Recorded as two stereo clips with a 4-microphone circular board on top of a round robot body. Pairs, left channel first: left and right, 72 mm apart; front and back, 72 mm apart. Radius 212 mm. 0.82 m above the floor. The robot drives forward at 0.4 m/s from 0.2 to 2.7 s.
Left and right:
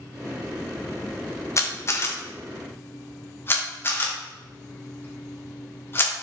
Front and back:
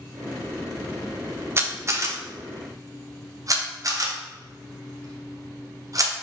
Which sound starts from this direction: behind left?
A camera shutter, at 1.6 s.